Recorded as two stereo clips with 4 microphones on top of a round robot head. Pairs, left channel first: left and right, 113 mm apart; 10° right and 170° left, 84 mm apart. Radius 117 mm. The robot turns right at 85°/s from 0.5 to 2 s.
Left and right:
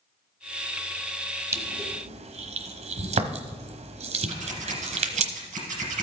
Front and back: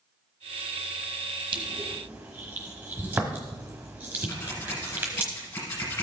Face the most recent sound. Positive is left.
turn(degrees=-70)